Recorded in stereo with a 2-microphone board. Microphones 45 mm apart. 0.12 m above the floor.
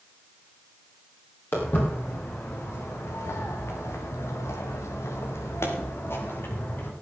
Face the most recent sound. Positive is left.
turn(degrees=45)  # may be behind; listen again after turning